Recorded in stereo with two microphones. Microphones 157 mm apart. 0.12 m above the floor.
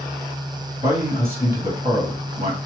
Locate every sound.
0.8 s a man speaking: 40° left (ahead or behind), 1.8 m